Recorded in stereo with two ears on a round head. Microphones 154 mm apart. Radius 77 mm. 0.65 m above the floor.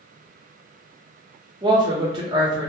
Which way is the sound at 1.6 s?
25° right (ahead or behind).